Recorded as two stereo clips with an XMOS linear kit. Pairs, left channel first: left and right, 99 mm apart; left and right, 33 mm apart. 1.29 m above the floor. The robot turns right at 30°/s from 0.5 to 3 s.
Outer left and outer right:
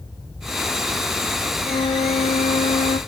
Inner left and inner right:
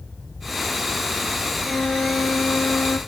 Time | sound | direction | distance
1.6 | a flute | 50° left | 1.1 m